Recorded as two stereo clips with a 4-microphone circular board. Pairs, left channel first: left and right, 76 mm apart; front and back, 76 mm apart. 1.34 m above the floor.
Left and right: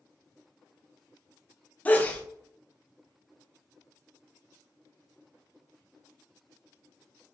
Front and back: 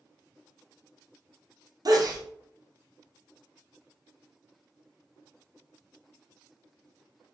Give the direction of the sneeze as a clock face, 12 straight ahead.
7 o'clock.